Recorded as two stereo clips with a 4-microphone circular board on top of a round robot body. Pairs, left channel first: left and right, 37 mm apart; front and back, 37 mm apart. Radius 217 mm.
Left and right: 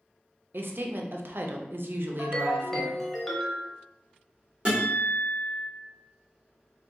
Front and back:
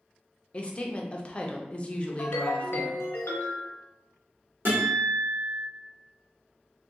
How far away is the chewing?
No chewing in this recording.